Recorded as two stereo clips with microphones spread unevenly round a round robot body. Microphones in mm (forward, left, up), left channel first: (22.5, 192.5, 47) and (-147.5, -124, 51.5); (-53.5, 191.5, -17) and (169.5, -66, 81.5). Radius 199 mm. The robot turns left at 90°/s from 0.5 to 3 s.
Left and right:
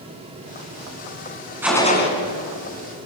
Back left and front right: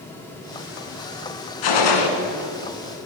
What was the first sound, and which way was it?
A gunshot, 160° left.